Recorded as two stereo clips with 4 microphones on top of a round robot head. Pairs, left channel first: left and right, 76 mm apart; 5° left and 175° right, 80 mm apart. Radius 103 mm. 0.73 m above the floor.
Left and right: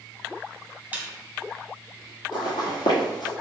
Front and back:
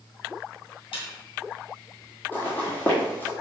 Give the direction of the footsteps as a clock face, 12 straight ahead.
10 o'clock.